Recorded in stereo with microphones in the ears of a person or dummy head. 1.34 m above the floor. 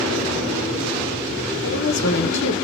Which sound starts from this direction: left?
A woman speaking, at 1.6 s.